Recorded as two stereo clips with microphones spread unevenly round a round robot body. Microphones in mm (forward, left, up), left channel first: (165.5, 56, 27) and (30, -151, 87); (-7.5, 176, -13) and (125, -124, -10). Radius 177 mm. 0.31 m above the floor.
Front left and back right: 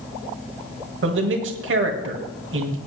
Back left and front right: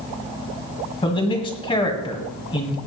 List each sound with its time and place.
1.0 s a man speaking: 170° right, 1.7 m